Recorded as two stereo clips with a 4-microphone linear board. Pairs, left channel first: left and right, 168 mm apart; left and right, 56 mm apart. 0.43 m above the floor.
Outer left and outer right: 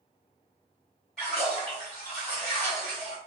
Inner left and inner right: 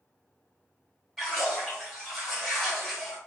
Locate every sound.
1.2 s a splash: 5° left (ahead or behind), 1.8 m